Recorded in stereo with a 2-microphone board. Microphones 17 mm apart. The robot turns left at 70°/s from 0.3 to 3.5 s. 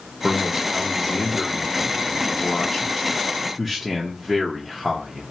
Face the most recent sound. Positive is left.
turn(degrees=-15)